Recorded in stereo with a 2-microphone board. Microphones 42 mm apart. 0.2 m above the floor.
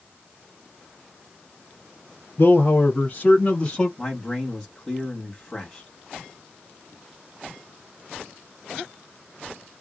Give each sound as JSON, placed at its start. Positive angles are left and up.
{"t": 2.4, "sound": "a man speaking", "side_deg": 50, "distance_m": 1.7}
{"t": 4.0, "sound": "a man speaking", "side_deg": 10, "distance_m": 1.3}